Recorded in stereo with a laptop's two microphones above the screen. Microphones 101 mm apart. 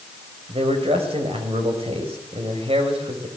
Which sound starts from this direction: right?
A man speaking, at 0.5 s.